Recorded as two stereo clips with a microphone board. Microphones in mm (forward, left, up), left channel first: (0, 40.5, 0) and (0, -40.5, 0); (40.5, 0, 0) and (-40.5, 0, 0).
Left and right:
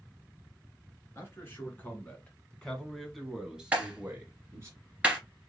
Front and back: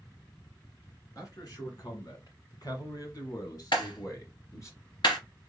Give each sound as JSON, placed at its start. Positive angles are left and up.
{"t": 1.1, "sound": "a man speaking", "azimuth_deg": 35, "distance_m": 2.0}
{"t": 3.7, "sound": "a clap", "azimuth_deg": -15, "distance_m": 2.5}